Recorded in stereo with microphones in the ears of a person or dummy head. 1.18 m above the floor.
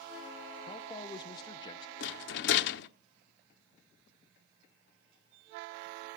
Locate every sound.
0.7 s a man speaking: 25° left (ahead or behind), 0.6 m
2.0 s a rattle: 60° left (ahead or behind), 1.0 m